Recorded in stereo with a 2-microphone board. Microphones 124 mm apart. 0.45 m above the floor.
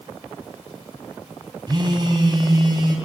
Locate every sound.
1.7 s a phone buzzing: 35° right (ahead or behind), 3 m